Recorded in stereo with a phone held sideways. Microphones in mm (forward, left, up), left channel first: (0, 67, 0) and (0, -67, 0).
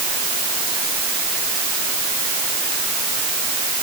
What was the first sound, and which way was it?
Only background noise.